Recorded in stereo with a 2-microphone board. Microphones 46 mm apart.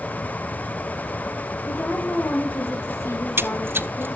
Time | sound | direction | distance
1.7 | a woman speaking | 55° left (ahead or behind) | 6 m
3.1 | a splash | 55° right (ahead or behind) | 1.0 m